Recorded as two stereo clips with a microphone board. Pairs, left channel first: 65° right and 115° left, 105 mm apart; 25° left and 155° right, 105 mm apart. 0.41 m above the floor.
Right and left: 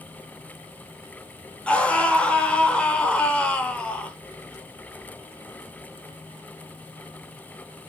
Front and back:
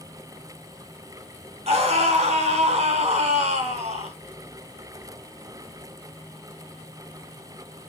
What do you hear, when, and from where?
1.7 s a scream: 145° right, 3 m